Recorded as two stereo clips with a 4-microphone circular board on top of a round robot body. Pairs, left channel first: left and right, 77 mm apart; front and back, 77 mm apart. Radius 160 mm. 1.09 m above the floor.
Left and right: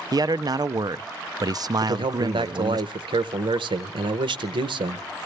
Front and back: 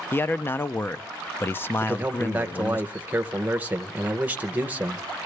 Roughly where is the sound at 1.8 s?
Right.